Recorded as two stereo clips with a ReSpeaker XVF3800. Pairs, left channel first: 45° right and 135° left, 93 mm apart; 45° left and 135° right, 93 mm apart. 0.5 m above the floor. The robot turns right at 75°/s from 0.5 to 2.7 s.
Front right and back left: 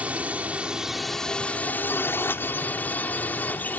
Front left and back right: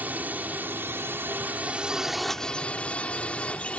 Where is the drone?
175° right; by 3.8 s 10° right.